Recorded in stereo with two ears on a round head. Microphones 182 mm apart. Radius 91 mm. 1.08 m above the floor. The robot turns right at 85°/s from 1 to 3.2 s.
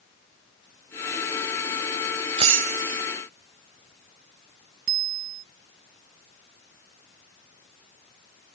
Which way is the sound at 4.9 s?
50° right (ahead or behind).